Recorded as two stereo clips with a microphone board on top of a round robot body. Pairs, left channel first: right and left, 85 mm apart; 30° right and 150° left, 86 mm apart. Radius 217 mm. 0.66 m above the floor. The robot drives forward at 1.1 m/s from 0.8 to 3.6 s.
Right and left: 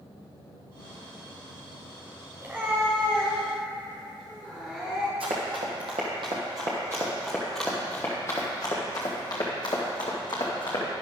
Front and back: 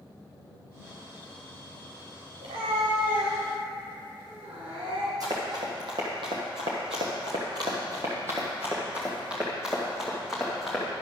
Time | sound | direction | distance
2.4 | a cat meowing | 155° left | 0.7 m
5.2 | running footsteps | 100° left | 1.4 m